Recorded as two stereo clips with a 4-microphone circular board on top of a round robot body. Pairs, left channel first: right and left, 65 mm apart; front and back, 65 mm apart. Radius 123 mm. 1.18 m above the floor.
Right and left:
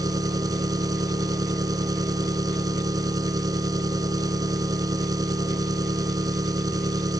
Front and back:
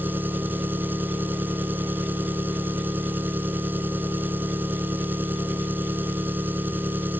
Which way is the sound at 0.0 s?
120° left.